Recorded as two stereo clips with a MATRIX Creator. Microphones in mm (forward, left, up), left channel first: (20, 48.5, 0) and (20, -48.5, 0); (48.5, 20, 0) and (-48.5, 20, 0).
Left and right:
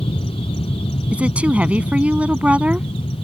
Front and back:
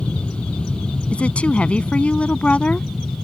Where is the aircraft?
80° left; by 3.2 s 85° left.